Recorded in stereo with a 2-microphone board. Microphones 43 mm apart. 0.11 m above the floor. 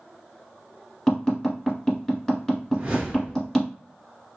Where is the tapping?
15° left (ahead or behind), 1.7 m.